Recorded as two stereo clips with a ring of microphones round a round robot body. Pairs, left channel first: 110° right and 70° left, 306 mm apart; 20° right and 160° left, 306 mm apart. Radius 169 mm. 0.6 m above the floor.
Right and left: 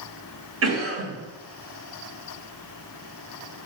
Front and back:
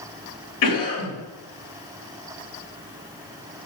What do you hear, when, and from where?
0.6 s a cough: 25° left, 4 m